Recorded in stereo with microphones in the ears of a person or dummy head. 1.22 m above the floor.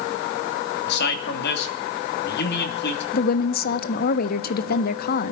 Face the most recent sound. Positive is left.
turn(degrees=50)  # may be behind; listen again after turning